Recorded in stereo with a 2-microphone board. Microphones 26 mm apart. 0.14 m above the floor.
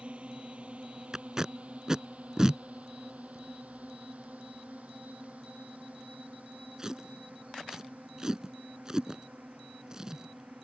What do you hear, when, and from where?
0.0 s a drone: 50° right (ahead or behind); by 10.6 s 75° right (ahead or behind)
1.1 s tape being pulled: 25° right (ahead or behind)